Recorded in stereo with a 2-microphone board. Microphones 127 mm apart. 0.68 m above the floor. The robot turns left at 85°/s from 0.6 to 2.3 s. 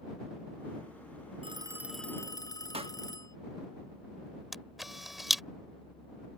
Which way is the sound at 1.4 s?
135° right.